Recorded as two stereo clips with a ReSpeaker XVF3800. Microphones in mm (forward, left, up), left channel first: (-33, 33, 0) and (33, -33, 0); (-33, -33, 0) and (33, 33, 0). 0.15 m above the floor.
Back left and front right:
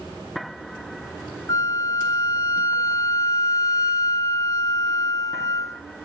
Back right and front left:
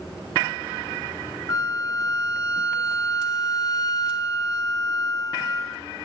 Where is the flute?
175° right, 0.8 m.